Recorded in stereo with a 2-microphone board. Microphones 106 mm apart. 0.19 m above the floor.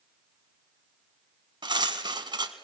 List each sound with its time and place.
1.6 s cutlery clinking: 45° right (ahead or behind), 0.9 m